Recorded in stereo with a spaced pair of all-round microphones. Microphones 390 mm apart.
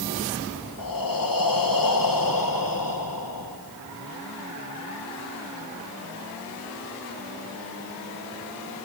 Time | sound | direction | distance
0.8 | breathing | 60° left (ahead or behind) | 1.3 m